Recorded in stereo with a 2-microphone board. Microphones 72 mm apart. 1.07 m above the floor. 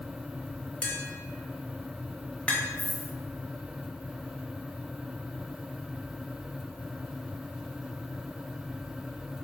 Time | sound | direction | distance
0.8 | tapping | 15° left (ahead or behind) | 0.7 m
2.8 | a dropped coin | 45° left (ahead or behind) | 1.3 m